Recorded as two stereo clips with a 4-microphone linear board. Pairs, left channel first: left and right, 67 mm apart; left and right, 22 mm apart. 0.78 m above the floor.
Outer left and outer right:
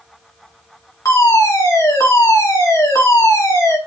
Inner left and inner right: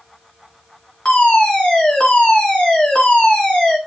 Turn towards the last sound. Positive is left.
turn(degrees=50)  # may be behind; listen again after turning